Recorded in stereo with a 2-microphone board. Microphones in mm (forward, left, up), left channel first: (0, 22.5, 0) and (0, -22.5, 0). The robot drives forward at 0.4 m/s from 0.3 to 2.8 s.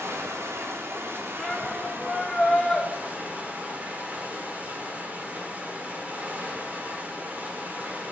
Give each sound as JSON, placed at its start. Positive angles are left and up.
{"t": 0.0, "sound": "running water", "side_deg": -75, "distance_m": 0.9}
{"t": 1.4, "sound": "a shout", "side_deg": 10, "distance_m": 1.1}